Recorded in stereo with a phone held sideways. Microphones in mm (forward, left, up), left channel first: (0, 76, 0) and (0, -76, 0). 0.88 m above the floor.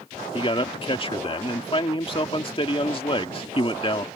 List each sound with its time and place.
0.3 s a man speaking: 35° left (ahead or behind)